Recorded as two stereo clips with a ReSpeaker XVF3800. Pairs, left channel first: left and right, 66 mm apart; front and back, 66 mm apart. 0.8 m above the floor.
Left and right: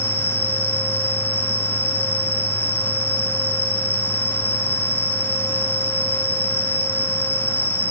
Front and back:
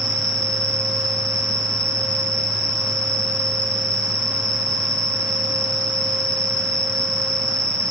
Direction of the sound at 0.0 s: 150° left.